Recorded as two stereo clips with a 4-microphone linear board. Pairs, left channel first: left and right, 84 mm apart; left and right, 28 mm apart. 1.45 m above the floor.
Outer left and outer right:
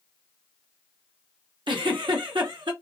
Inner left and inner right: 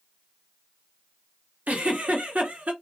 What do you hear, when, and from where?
1.7 s a giggle: 80° right, 0.9 m